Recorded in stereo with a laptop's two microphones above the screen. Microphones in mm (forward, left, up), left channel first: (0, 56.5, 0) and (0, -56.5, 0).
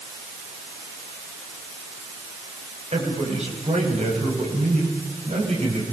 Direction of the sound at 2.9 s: 80° right.